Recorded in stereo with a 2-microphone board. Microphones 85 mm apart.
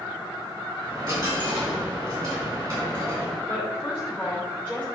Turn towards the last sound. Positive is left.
turn(degrees=-5)  # may be behind; listen again after turning